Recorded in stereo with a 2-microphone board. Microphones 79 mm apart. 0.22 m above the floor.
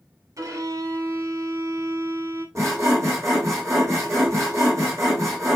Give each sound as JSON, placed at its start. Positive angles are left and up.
{"t": 0.4, "sound": "a violin", "side_deg": -45, "distance_m": 0.8}
{"t": 2.5, "sound": "sawing", "side_deg": -40, "distance_m": 1.6}